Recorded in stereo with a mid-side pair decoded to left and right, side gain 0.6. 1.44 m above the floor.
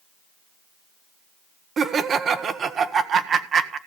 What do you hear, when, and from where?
1.8 s laughter: 40° right, 1.3 m